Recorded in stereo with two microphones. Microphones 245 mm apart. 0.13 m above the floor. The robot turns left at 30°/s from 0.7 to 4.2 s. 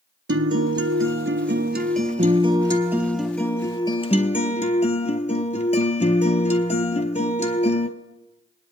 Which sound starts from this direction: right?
A guitar, at 0.3 s.